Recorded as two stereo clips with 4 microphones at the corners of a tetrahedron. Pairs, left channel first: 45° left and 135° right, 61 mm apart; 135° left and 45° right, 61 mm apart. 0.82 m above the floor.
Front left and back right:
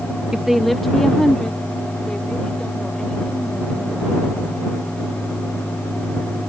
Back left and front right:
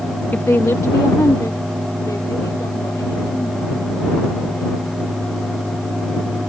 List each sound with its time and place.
0.3 s a woman speaking: 155° left; by 4.7 s 120° left